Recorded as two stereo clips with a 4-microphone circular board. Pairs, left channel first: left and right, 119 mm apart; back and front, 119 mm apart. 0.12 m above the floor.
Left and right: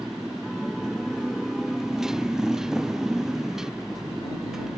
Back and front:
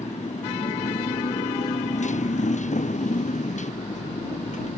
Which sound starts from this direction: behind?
A motorcycle, at 0.0 s.